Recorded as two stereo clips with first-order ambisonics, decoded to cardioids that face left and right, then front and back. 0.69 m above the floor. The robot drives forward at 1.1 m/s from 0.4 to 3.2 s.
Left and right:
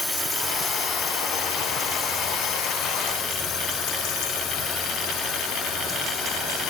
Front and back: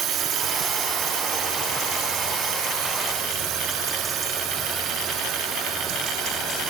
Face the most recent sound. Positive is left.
turn(degrees=130)